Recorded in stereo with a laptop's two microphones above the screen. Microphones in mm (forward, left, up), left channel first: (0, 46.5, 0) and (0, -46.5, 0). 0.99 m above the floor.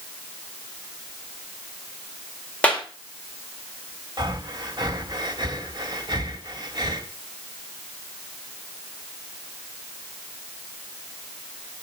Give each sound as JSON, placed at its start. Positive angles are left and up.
{"t": 2.6, "sound": "a clap", "side_deg": 15, "distance_m": 3.5}
{"t": 4.2, "sound": "breathing", "side_deg": -45, "distance_m": 2.5}